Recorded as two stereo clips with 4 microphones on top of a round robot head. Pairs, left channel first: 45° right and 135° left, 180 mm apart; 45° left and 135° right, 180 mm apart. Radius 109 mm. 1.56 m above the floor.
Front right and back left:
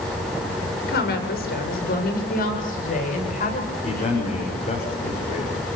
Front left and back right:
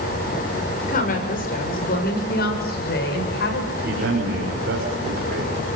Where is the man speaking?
100° right, 6 m.